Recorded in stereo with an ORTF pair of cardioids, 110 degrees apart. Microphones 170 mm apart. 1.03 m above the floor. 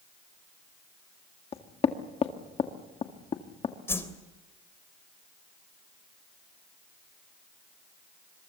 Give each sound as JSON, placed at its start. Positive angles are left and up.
{"t": 1.5, "sound": "knocking", "azimuth_deg": 35, "distance_m": 1.9}
{"t": 3.9, "sound": "a whoosh", "azimuth_deg": 15, "distance_m": 3.0}